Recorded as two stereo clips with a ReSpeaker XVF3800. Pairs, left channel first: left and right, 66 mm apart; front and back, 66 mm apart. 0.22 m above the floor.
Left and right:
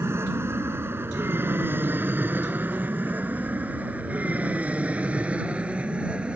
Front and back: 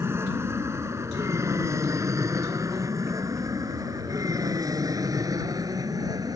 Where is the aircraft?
135° right; by 6.4 s 165° right.